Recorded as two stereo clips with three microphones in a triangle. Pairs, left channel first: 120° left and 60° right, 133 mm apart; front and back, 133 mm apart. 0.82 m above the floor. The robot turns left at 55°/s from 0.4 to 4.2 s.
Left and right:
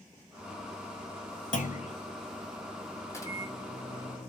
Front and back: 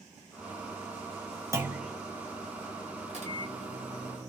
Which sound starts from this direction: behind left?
A clunk, at 1.5 s.